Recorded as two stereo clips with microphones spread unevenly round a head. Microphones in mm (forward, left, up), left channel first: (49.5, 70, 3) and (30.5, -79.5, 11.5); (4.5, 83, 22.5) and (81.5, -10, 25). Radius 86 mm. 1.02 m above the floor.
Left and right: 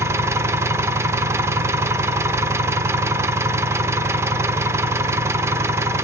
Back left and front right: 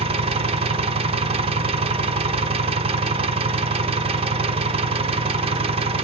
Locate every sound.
0.0 s an engine running: 30° right, 0.9 m